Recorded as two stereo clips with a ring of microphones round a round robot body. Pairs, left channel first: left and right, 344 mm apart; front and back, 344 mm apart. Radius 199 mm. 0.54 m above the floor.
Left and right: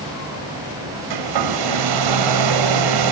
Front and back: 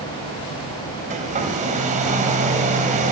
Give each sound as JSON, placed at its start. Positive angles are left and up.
{"t": 1.1, "sound": "a hair dryer", "azimuth_deg": -110, "distance_m": 1.7}